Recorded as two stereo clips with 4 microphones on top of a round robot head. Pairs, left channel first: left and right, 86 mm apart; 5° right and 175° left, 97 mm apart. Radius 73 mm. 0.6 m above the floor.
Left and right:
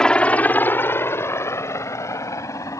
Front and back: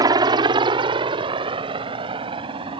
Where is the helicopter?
165° left; by 2.8 s 140° left.